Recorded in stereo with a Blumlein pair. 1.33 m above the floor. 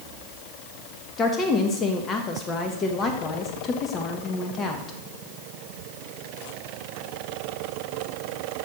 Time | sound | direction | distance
1.2 | a woman speaking | 25° left | 1.4 m